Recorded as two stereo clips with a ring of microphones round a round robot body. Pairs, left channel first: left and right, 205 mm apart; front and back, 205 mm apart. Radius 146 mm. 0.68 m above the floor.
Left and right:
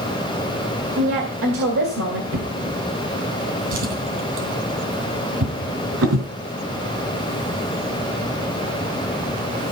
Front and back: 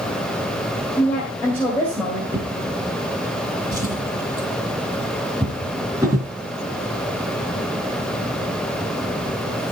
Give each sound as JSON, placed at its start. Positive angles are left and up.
{"t": 1.0, "sound": "a woman speaking", "azimuth_deg": -85, "distance_m": 2.5}
{"t": 2.3, "sound": "a drawer", "azimuth_deg": -100, "distance_m": 3.0}